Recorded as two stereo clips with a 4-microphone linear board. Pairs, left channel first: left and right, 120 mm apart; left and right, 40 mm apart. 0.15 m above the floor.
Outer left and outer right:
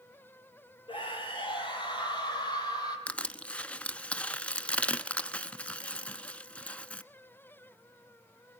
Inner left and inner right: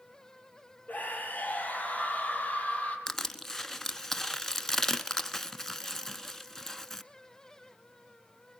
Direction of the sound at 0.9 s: 45° left (ahead or behind).